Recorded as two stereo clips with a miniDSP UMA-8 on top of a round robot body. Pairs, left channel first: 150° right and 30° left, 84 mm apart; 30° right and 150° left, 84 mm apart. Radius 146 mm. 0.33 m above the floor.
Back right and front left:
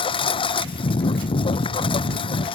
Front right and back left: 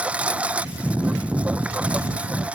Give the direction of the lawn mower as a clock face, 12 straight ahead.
4 o'clock.